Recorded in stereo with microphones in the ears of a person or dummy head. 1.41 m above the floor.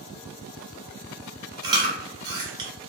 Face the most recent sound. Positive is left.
turn(degrees=-20)  # may be behind; listen again after turning